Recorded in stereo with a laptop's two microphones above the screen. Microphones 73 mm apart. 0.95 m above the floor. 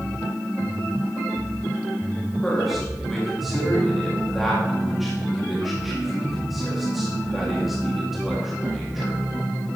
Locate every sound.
2.4 s a man speaking: centre (ahead or behind), 2 m